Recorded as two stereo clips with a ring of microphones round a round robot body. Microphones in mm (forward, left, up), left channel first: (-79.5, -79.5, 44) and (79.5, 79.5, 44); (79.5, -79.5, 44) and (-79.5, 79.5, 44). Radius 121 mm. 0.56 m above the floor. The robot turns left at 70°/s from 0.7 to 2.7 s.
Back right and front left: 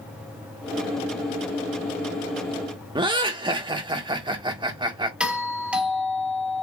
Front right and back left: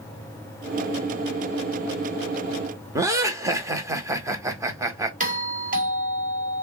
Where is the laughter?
80° left, 0.9 m.